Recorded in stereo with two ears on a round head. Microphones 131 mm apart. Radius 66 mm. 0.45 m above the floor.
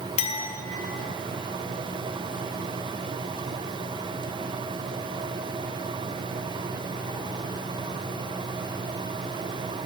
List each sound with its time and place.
0.2 s a clink: 40° left (ahead or behind), 0.6 m